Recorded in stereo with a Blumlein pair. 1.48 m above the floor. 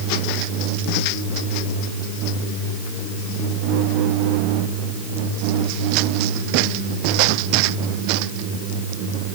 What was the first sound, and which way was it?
Only background noise.